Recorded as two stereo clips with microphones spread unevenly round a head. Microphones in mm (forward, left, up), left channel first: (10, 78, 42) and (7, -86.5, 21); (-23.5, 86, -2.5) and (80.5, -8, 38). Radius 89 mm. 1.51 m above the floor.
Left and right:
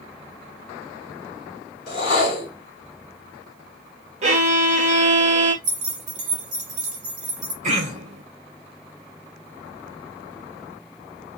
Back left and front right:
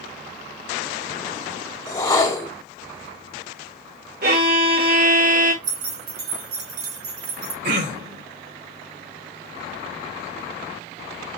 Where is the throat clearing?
45° right, 3.5 m.